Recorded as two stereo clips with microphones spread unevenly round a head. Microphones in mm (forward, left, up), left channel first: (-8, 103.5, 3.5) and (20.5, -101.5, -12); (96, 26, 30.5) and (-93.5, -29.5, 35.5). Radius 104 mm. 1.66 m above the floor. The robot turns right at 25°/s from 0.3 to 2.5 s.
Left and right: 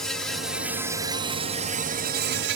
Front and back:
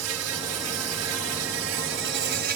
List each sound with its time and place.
0.0 s an insect: 175° right; by 2.6 s 120° right